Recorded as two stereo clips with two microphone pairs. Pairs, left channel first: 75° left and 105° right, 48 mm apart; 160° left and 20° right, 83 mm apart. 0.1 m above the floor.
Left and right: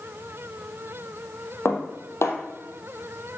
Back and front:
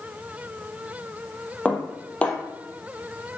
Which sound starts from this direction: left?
Dishes clattering, at 1.6 s.